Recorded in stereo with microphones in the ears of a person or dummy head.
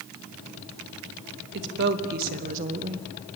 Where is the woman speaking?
60° right (ahead or behind), 3 m; by 3.1 s 20° right (ahead or behind), 1.3 m.